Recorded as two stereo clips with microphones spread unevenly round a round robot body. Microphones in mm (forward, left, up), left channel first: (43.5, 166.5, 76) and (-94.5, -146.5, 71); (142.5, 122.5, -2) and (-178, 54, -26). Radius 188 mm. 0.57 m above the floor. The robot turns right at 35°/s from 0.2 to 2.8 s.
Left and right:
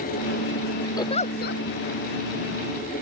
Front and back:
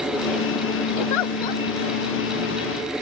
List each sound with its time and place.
1.0 s a giggle: 15° right; by 1.6 s 10° left